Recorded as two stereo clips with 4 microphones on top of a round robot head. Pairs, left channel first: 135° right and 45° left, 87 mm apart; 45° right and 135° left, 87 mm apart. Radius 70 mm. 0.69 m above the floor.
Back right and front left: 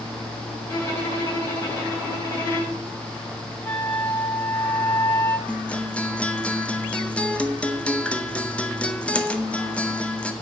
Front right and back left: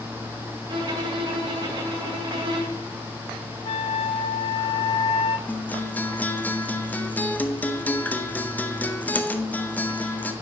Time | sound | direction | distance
0.7 | a violin | 165° left | 3.5 m
3.6 | a flute | 60° right | 1.5 m
5.5 | a guitar | 80° right | 1.1 m